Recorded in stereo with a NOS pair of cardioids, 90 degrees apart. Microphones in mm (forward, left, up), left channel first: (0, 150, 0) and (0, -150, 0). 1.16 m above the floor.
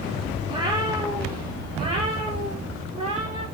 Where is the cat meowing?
15° right, 6.5 m; by 3.4 s 20° right, 11 m.